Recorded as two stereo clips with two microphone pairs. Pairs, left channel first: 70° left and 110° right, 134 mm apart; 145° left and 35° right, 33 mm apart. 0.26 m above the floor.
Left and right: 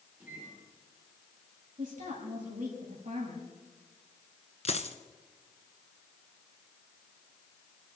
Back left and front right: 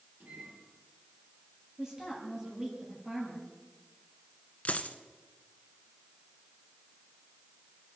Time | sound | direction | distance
0.2 | a microwave | 30° right | 8.5 m
1.8 | a woman speaking | 105° right | 7.5 m
4.7 | a dropped coin | 105° left | 1.2 m